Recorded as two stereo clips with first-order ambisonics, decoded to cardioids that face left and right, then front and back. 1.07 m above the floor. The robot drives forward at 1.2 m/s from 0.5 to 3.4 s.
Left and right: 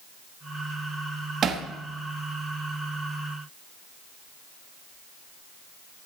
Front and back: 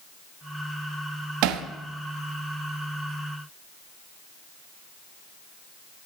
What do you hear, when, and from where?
1.4 s hammering: 150° right, 1.2 m; by 1.6 s 155° right, 1.4 m